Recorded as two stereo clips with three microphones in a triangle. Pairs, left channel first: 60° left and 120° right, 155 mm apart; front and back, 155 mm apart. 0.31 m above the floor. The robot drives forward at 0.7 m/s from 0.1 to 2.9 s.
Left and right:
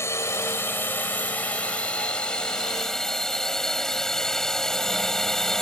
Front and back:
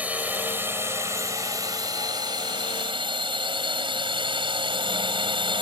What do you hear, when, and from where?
0.0 s a drone: 110° left; by 5.6 s 145° left